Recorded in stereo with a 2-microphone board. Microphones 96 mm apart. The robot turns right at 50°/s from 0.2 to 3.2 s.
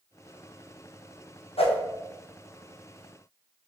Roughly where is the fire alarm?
I don't hear a fire alarm.